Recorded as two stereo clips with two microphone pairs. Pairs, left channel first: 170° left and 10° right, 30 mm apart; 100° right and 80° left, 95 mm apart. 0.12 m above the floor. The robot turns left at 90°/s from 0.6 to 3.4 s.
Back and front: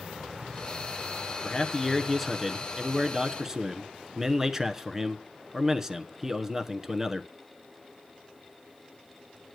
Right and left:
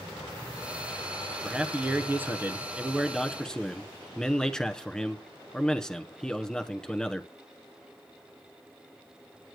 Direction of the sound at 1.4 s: 145° left.